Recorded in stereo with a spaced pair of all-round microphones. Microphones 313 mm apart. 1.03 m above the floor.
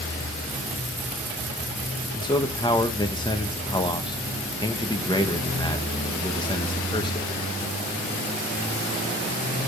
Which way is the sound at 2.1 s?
15° left (ahead or behind).